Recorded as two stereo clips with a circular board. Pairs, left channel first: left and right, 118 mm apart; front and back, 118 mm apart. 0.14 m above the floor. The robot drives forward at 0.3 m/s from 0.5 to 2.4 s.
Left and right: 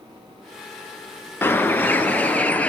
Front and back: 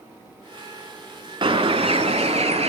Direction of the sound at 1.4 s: 155° left.